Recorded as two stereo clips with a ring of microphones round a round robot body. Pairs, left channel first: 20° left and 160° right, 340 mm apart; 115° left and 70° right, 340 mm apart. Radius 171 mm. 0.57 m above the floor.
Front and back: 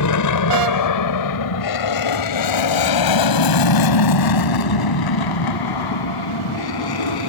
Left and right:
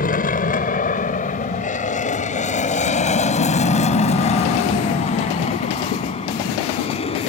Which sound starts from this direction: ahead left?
An aircraft, at 0.0 s.